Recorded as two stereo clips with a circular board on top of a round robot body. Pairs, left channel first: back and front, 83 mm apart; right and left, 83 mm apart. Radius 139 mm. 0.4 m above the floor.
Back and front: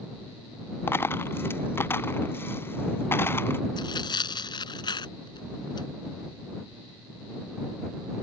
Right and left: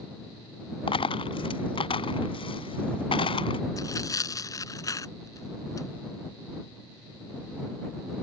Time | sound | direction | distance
0.9 | a dropped coin | 115° right | ?
3.8 | tearing paper | 145° right | ?